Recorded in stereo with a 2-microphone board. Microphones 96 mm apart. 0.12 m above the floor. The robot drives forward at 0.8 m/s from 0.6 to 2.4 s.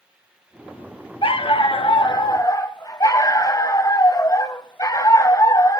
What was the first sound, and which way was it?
A dog barking, 70° left (ahead or behind).